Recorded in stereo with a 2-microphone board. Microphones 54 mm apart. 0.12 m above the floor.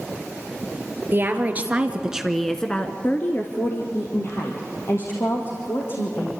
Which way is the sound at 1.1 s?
35° right (ahead or behind).